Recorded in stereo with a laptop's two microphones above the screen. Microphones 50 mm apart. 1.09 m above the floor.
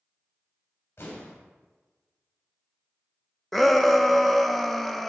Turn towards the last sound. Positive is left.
turn(degrees=5)  # may be behind; listen again after turning